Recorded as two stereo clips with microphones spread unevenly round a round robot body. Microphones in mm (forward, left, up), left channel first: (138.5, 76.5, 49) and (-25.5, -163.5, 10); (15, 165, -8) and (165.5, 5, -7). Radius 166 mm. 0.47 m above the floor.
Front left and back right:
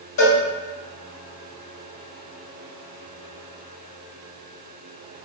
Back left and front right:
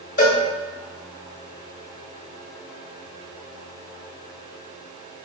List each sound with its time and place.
0.2 s a cowbell: 100° left, 1.4 m